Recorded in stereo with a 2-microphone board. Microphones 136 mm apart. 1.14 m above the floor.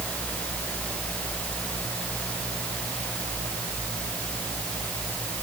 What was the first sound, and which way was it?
Only background noise.